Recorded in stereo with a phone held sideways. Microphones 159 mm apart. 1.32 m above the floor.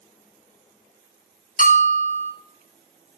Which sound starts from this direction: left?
A bell, at 1.6 s.